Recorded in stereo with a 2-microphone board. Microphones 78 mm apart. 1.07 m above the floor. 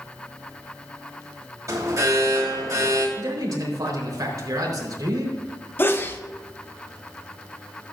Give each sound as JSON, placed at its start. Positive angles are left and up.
{"t": 1.7, "sound": "an alarm", "side_deg": -40, "distance_m": 3.0}
{"t": 3.2, "sound": "a man speaking", "side_deg": -50, "distance_m": 3.5}
{"t": 5.8, "sound": "a sneeze", "side_deg": 30, "distance_m": 0.9}